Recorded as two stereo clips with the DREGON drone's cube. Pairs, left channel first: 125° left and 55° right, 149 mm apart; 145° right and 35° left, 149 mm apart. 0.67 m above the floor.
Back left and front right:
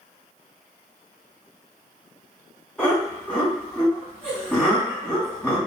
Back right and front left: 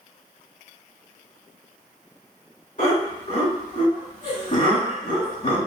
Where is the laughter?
155° right, 2.0 m.